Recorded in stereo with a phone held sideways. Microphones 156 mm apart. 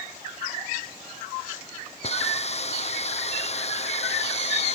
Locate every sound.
2.0 s a hiss: 45° left (ahead or behind)